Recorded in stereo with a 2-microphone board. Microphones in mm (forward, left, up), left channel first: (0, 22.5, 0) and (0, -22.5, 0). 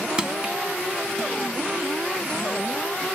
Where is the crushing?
20° right (ahead or behind), 0.9 m.